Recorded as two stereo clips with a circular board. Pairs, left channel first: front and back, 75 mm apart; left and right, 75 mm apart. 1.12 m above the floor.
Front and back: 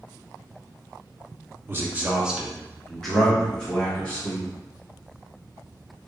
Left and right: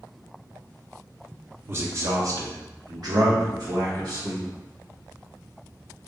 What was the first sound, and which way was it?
A man speaking, 135° right.